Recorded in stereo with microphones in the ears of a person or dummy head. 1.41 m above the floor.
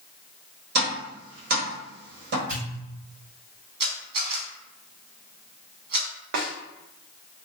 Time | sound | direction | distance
0.8 | tapping | 60° right (ahead or behind) | 1.1 m
2.5 | a pop | 65° right (ahead or behind) | 1.7 m
3.8 | a camera shutter | 60° right (ahead or behind) | 1.3 m
6.3 | a snare drum | 60° right (ahead or behind) | 0.7 m